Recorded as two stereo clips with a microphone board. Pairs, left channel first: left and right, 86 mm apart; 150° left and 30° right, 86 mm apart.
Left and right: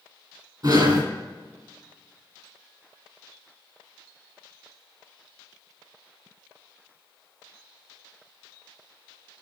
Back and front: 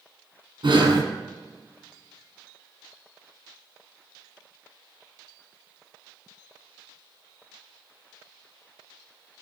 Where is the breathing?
50° right, 2.5 m.